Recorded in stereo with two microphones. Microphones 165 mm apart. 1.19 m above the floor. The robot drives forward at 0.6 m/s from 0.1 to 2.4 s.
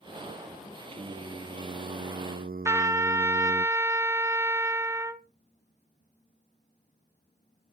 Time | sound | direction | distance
0.9 | singing | 40° right (ahead or behind) | 1.1 m
2.6 | a trumpet | 15° right (ahead or behind) | 0.6 m